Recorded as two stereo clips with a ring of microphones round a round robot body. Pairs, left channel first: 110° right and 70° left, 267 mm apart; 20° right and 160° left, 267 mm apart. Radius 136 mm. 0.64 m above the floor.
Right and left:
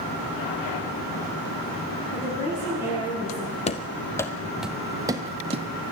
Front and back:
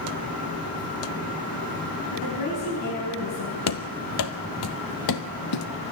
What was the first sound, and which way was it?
A woman speaking, 35° right.